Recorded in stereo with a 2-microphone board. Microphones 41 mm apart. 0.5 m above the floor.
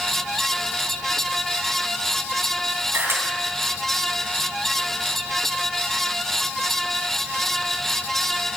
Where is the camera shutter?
70° right (ahead or behind), 3 m.